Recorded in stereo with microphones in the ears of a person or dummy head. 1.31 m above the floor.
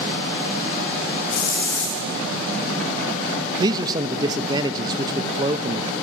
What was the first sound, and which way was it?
A hiss, 90° left.